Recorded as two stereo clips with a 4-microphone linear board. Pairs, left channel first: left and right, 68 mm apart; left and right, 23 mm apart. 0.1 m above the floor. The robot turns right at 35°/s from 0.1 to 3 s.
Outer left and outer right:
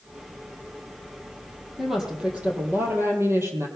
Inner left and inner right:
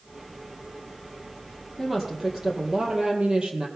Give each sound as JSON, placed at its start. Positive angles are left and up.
{"t": 1.8, "sound": "a woman speaking", "azimuth_deg": 180, "distance_m": 3.0}